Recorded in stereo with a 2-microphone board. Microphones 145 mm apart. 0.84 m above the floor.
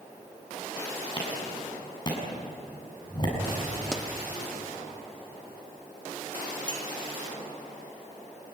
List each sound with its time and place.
1.2 s a clap: 30° left (ahead or behind), 7 m
3.9 s a pop: 5° left (ahead or behind), 1.1 m
6.7 s a clink: 35° right (ahead or behind), 2.5 m